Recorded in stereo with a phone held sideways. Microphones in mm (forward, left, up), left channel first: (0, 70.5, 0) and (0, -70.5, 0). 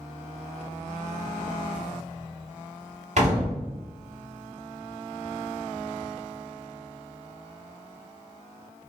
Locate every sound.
3.2 s a door slam: 55° right (ahead or behind), 1.0 m